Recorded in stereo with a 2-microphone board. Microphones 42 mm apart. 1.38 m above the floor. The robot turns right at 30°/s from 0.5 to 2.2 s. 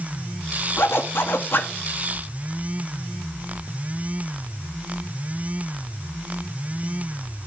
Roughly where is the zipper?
Left.